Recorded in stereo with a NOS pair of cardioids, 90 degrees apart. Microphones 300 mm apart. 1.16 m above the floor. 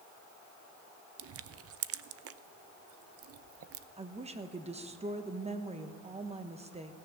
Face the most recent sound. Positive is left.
turn(degrees=-20)